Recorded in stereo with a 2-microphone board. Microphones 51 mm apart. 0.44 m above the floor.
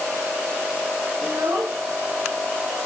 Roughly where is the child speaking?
Right.